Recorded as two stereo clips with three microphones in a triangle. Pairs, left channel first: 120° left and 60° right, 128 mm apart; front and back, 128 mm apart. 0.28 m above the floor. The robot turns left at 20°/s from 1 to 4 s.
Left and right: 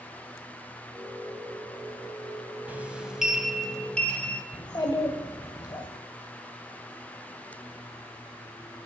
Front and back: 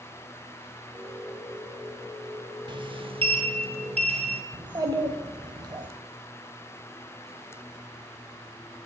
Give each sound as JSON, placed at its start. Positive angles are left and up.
{"t": 2.7, "sound": "a sliding door", "azimuth_deg": -135, "distance_m": 0.5}
{"t": 4.5, "sound": "a child speaking", "azimuth_deg": 155, "distance_m": 0.6}